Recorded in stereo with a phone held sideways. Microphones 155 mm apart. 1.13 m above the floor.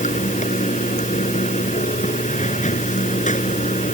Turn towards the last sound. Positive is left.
turn(degrees=55)  # may be behind; listen again after turning